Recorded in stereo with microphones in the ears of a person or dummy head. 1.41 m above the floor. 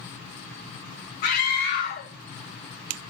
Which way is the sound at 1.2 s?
60° left (ahead or behind).